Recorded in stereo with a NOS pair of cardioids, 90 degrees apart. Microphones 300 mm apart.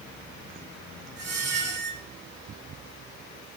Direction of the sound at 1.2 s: 60° right.